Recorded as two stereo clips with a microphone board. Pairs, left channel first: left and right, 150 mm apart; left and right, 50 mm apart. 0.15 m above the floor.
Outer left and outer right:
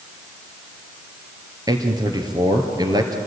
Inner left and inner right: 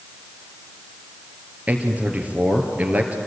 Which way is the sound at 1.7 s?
25° right (ahead or behind).